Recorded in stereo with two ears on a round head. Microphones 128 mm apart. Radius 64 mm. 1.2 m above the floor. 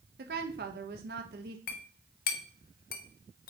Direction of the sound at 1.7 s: 70° left (ahead or behind).